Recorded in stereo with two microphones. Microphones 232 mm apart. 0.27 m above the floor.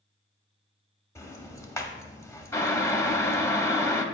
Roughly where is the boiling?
Centre.